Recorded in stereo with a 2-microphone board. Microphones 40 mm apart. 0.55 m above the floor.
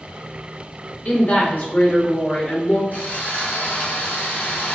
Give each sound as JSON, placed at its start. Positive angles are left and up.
{"t": 1.1, "sound": "a woman speaking", "side_deg": 55, "distance_m": 1.8}
{"t": 2.9, "sound": "sawing", "side_deg": 55, "distance_m": 1.6}